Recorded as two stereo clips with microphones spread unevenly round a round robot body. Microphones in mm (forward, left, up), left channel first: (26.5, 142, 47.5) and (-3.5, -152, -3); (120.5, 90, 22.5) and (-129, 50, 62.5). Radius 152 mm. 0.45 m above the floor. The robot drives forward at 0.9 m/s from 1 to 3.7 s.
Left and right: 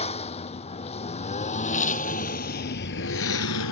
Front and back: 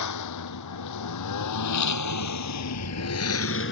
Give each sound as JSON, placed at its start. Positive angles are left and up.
{"t": 0.0, "sound": "a lawn mower", "azimuth_deg": 15}